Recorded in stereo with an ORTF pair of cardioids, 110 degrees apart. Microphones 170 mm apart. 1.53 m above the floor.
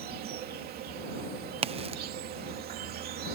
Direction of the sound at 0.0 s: 65° right.